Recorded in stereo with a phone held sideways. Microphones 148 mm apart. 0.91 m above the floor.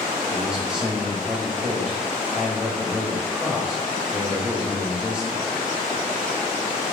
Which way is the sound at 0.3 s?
5° right (ahead or behind).